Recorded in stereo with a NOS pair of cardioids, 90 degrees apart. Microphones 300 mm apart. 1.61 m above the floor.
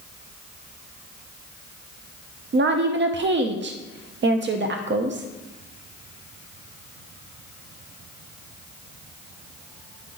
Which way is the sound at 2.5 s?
40° right.